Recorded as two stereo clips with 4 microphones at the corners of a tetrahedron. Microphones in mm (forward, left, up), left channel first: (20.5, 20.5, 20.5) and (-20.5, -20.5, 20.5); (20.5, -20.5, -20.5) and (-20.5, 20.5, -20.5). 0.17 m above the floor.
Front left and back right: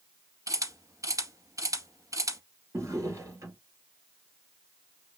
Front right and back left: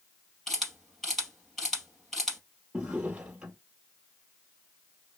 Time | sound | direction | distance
0.5 | a camera shutter | 135° right | 2.5 m
2.7 | a drawer | 155° right | 2 m